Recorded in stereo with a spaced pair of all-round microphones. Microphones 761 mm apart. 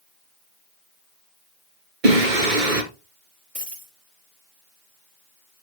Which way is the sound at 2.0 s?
85° right.